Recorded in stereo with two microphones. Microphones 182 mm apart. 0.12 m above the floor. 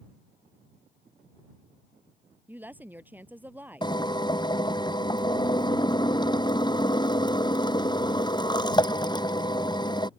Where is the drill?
25° left (ahead or behind).